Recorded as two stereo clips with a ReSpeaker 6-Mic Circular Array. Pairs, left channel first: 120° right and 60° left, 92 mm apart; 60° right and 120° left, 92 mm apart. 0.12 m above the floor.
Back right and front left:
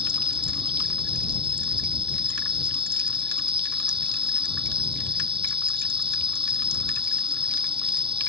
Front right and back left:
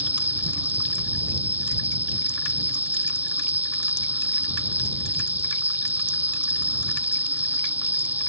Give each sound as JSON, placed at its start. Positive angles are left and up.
{"t": 0.0, "sound": "an insect", "azimuth_deg": 50}